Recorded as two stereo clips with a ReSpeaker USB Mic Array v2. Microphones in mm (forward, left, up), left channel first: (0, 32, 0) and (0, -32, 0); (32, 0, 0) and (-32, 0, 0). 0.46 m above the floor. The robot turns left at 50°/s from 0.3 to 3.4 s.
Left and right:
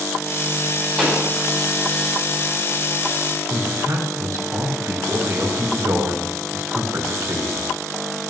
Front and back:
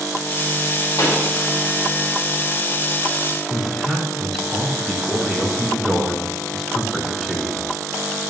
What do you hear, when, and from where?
1.0 s a pop: 10° left, 3.5 m; by 1.3 s 10° right, 3.5 m
3.5 s a man speaking: 90° right, 3 m